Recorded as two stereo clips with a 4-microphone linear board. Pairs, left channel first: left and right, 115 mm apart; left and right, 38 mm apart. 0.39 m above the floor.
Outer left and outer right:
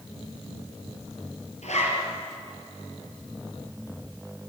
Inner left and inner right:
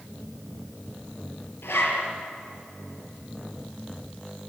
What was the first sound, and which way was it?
A zipper, 80° left.